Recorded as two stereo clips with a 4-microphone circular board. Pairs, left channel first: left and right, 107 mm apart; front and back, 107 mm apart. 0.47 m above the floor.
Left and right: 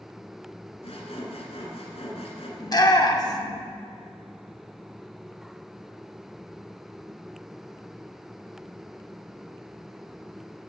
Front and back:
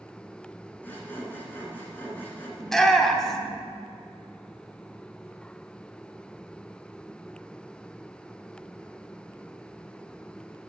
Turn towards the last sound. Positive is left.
turn(degrees=85)